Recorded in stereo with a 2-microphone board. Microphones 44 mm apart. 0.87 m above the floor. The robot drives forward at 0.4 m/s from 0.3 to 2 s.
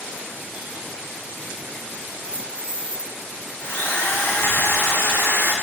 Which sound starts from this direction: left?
A drill, at 3.6 s.